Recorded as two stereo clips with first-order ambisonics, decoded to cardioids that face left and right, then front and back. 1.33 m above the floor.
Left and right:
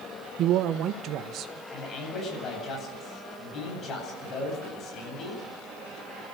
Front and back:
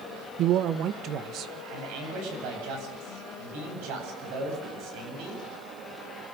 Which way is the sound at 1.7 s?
155° left.